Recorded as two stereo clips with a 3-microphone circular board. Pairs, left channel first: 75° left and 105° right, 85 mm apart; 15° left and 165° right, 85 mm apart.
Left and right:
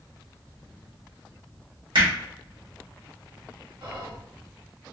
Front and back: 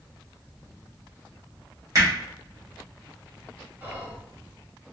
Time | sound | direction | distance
1.9 | hammering | 115° right | 1.8 m
3.8 | whispering | 95° right | 1.8 m